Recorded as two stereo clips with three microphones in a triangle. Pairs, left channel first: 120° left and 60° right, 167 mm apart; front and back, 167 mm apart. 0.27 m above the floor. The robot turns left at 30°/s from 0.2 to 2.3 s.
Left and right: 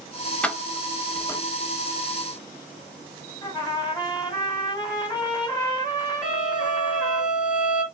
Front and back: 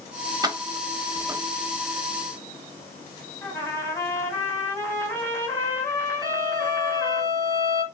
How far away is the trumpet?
About 1.9 m.